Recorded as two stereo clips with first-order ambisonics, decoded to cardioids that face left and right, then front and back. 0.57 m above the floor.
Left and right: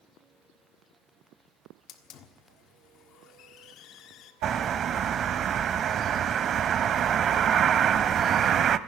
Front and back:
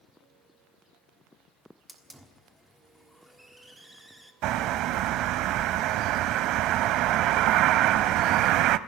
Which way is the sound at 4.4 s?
150° right.